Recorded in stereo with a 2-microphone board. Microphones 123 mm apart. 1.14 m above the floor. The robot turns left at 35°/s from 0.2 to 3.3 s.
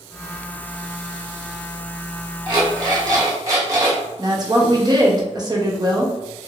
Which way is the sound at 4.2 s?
35° right (ahead or behind).